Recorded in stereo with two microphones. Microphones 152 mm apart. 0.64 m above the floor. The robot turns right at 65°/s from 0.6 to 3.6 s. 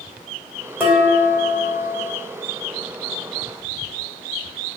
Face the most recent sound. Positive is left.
turn(degrees=165)